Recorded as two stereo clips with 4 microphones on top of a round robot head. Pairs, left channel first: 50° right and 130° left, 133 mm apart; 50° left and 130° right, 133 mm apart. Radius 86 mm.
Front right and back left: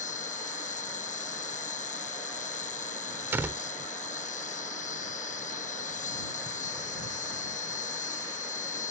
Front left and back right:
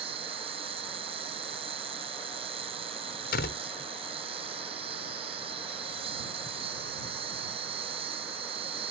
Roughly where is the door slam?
Ahead left.